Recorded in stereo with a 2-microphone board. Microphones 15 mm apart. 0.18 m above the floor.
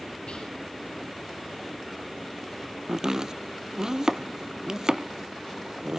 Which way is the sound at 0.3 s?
75° left (ahead or behind).